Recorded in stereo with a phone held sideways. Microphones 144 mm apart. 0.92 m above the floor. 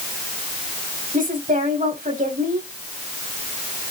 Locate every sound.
1.1 s a woman speaking: 70° right (ahead or behind), 5.5 m